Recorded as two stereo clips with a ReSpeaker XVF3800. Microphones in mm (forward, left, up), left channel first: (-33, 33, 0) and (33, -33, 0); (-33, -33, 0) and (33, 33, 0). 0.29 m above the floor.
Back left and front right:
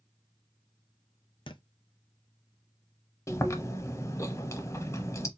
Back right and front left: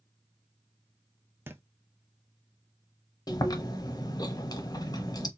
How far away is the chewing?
About 0.7 m.